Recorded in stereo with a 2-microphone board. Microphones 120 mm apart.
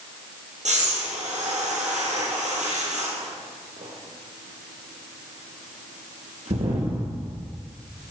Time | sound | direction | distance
0.7 | breathing | 80° right | 1.9 m